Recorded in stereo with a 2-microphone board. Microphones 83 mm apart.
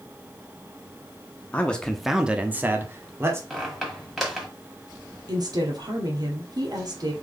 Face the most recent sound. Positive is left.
turn(degrees=-55)  # may be behind; listen again after turning